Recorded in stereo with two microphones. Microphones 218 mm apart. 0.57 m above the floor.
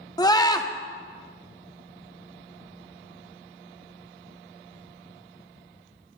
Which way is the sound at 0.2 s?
20° left (ahead or behind).